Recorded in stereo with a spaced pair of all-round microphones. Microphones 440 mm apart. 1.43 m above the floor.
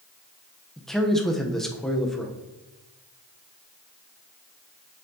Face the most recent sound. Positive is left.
turn(degrees=0)  # may be behind; listen again after turning